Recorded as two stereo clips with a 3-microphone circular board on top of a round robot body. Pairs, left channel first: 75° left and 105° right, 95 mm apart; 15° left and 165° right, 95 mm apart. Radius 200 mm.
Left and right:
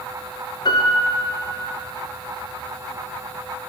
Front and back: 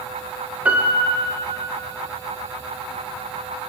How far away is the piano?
About 0.7 m.